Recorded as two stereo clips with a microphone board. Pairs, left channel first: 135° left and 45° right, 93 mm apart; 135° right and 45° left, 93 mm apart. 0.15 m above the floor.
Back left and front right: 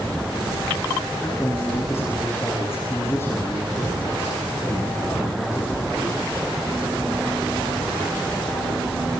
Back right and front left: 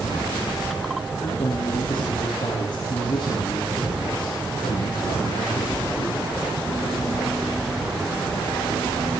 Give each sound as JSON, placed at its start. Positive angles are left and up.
{"t": 1.2, "sound": "a man speaking", "azimuth_deg": -165, "distance_m": 8.5}